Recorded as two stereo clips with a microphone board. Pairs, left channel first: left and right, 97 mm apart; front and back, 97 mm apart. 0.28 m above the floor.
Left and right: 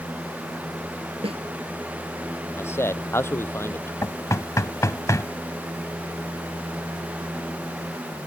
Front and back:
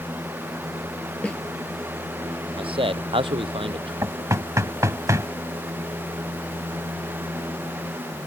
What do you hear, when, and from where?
1.2 s a snare drum: 80° right
2.6 s a man speaking: 155° left
4.0 s knocking: 135° left